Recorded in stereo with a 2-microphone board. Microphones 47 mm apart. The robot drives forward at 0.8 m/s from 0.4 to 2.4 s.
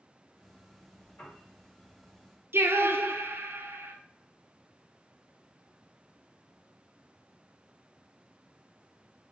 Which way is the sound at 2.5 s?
60° right (ahead or behind).